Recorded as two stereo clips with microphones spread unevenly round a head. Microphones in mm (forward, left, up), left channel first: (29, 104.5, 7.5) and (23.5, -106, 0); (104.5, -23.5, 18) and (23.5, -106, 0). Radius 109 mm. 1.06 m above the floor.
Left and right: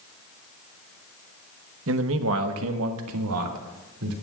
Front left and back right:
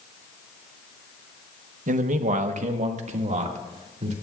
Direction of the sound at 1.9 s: 130° right.